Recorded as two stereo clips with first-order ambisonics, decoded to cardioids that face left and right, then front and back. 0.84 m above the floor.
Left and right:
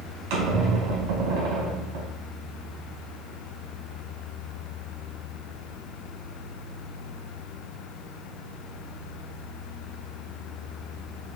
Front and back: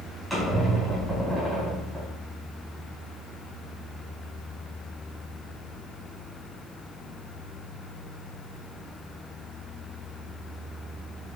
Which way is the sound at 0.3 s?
90° right.